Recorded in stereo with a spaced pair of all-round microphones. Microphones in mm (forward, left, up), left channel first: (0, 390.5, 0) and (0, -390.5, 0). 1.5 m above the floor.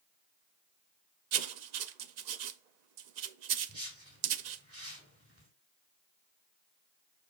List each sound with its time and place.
1.3 s writing: 65° right (ahead or behind), 0.6 m
3.7 s a whoosh: 20° right (ahead or behind), 3 m